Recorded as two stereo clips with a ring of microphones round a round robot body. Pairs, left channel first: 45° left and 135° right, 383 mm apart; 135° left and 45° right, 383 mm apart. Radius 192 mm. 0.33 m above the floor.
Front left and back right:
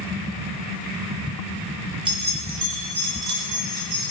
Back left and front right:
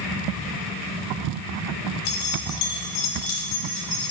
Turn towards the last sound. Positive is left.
turn(degrees=-165)